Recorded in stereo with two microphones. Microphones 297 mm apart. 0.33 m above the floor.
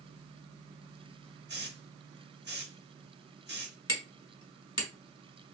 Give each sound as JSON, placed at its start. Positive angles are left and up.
{"t": 1.5, "sound": "a hiss", "side_deg": -40, "distance_m": 0.7}
{"t": 3.9, "sound": "hammering", "side_deg": 70, "distance_m": 1.1}